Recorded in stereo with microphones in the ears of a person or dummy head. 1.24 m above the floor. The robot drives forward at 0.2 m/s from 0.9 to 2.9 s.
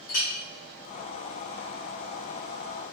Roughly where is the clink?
Left.